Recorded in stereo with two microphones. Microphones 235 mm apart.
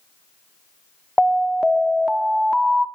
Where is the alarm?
Centre (ahead or behind), 0.9 m.